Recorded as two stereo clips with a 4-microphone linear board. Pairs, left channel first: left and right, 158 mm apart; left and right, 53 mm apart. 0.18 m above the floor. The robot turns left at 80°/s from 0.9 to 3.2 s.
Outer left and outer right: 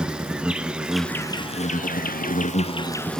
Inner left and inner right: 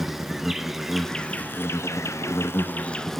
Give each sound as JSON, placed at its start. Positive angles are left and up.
{"t": 0.0, "sound": "an insect", "azimuth_deg": -175, "distance_m": 0.8}